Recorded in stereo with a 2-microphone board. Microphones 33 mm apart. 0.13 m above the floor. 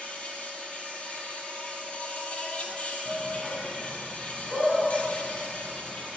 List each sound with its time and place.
0.0 s an insect: 40° left (ahead or behind), 0.8 m
3.0 s a shout: 20° right (ahead or behind), 1.3 m